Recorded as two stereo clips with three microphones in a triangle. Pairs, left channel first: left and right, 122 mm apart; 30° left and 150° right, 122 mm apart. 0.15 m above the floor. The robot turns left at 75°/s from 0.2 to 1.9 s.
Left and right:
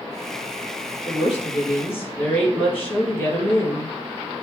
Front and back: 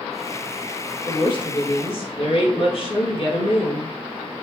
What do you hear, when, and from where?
1.1 s a woman speaking: 85° left, 2 m; by 4.0 s 20° left, 2 m